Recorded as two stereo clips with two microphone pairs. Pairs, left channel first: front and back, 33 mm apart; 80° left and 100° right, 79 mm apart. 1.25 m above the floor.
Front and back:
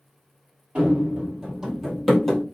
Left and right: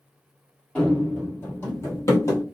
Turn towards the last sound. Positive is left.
turn(degrees=80)